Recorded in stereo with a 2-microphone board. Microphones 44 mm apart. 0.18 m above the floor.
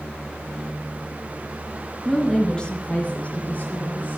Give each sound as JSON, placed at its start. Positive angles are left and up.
{"t": 2.0, "sound": "a woman speaking", "side_deg": 5, "distance_m": 2.0}